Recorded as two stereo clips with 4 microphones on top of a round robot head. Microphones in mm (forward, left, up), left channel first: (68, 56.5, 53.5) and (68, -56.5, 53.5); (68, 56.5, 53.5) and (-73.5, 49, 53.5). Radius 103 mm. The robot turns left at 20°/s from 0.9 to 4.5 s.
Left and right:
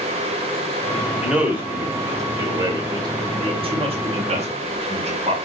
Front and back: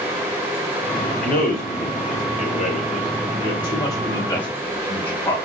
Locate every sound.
1.2 s a man speaking: 10° right, 2.5 m; by 5.4 s 75° right, 2.5 m